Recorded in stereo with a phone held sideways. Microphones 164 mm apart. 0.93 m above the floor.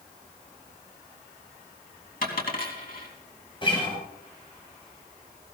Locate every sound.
2.2 s a dropped coin: 65° left (ahead or behind), 3.5 m
3.6 s a guitar: 30° left (ahead or behind), 6.5 m